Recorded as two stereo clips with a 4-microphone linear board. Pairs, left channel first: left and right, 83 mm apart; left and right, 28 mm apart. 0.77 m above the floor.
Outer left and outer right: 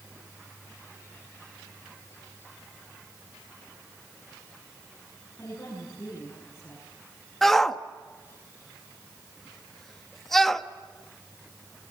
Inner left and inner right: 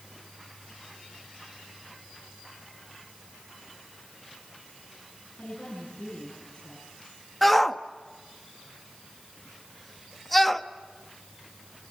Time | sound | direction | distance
5.4 | a woman speaking | 30° left (ahead or behind) | 9.5 m
7.4 | a shout | centre (ahead or behind) | 1.1 m